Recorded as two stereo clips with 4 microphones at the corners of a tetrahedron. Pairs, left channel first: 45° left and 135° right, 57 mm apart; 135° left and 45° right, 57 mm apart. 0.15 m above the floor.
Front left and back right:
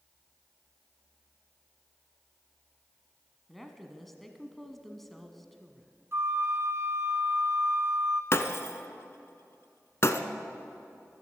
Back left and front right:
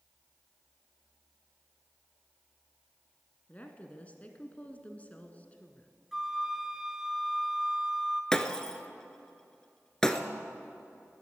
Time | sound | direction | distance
3.5 | a woman speaking | 130° left | 1.3 m
6.1 | a flute | 125° right | 1.1 m
8.3 | breaking glass | 60° left | 0.8 m